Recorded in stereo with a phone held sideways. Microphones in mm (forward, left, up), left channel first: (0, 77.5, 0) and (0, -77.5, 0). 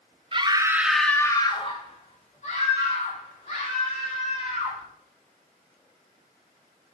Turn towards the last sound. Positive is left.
turn(degrees=60)  # may be behind; listen again after turning